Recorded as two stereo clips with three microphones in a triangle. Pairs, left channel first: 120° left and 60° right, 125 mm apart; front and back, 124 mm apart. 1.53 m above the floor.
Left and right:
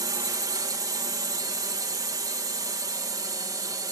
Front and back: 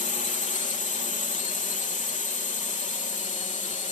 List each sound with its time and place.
0.0 s a drone: straight ahead